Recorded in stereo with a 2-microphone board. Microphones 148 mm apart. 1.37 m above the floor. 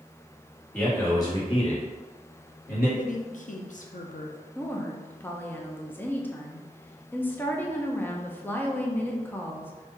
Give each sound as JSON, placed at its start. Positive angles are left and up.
{"t": 0.7, "sound": "a man speaking", "side_deg": 10, "distance_m": 1.6}
{"t": 3.0, "sound": "a woman speaking", "side_deg": 60, "distance_m": 0.6}
{"t": 4.5, "sound": "a woman speaking", "side_deg": 15, "distance_m": 0.6}